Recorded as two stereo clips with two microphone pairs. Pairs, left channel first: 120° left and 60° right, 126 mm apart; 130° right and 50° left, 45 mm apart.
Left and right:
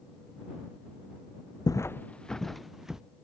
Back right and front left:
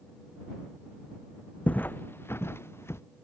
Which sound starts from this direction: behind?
Footsteps, at 1.7 s.